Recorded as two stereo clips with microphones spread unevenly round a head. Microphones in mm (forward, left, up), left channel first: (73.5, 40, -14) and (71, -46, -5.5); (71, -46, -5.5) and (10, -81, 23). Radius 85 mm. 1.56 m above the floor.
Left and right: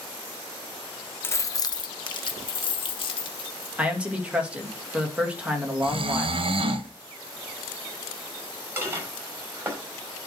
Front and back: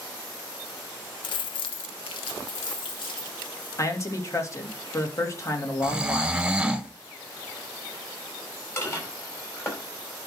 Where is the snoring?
75° right, 1.1 m.